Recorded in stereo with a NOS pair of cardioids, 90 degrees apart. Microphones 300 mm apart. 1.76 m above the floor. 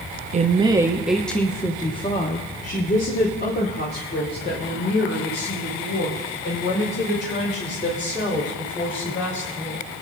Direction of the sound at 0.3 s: 25° right.